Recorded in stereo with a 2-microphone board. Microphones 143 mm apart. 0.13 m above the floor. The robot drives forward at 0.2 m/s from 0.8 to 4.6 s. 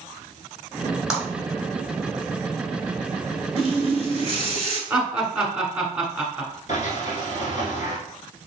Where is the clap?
5° right (ahead or behind), 1.6 m.